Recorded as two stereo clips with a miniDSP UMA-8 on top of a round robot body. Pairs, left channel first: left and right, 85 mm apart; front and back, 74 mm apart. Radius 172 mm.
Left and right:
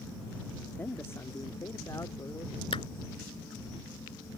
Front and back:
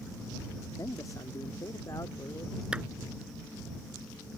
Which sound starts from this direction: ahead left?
A man speaking, at 0.8 s.